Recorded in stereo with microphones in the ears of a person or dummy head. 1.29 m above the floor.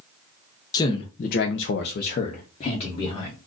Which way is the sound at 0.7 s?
20° left (ahead or behind).